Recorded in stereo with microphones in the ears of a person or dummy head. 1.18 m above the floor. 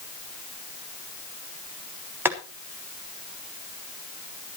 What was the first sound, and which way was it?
Boiling, 15° right (ahead or behind).